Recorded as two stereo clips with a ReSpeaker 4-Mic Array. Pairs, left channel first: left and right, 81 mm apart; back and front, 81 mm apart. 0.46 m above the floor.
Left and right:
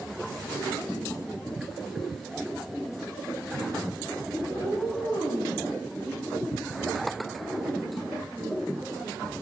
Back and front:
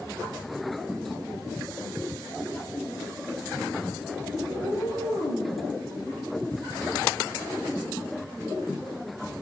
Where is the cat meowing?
Straight behind, 6 m; by 5.6 s 170° right, 6.5 m.